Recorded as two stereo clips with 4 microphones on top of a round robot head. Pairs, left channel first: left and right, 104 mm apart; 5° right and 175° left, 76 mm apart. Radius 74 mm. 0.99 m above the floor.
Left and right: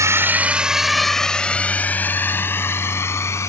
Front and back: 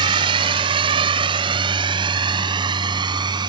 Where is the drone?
150° right; by 3.5 s 155° left.